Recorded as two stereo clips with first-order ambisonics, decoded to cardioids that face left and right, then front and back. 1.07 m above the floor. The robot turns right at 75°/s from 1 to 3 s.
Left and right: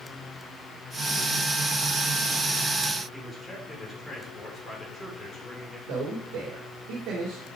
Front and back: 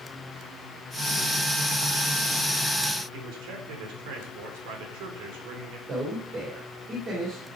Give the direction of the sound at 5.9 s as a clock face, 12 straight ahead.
4 o'clock.